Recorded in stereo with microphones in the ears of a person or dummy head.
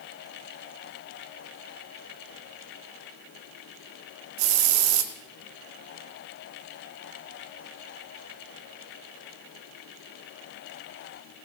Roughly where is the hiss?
Right.